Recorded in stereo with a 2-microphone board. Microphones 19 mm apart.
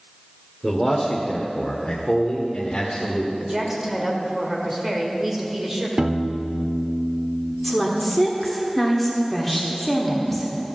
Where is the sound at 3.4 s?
25° right (ahead or behind), 1.7 m.